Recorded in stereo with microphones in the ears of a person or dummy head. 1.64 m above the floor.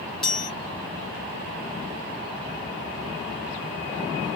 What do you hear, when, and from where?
0.2 s a chime: centre (ahead or behind), 1.1 m